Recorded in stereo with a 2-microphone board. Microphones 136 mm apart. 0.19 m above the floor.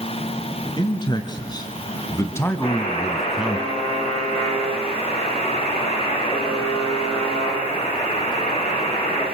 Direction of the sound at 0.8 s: 35° left (ahead or behind).